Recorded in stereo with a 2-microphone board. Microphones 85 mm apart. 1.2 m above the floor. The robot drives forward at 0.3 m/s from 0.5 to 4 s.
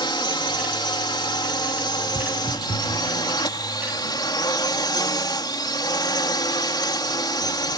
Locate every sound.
0.0 s a drone: 65° left (ahead or behind); by 7.8 s 60° left (ahead or behind)
2.1 s footsteps: 45° right (ahead or behind); by 3.0 s 50° right (ahead or behind)